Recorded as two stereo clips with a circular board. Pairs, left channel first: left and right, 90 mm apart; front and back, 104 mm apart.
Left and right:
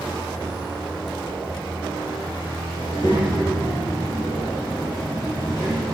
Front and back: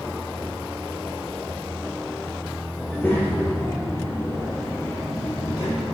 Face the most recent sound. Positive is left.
turn(degrees=30)